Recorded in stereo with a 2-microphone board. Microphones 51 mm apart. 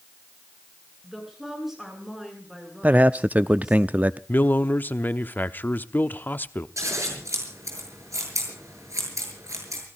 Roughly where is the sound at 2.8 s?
Right.